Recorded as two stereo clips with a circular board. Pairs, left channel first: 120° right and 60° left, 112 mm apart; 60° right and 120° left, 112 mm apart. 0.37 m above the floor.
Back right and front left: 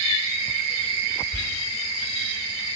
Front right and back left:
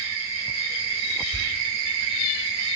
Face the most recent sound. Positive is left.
turn(degrees=-115)